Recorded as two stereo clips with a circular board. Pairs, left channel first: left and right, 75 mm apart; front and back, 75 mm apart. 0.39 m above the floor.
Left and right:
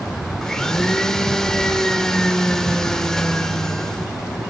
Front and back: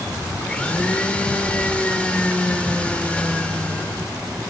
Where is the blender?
30° left, 0.7 m.